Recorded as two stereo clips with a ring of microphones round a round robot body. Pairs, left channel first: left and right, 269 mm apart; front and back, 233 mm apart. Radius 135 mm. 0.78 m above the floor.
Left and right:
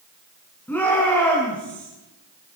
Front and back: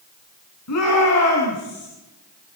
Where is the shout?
5° left, 8.5 m.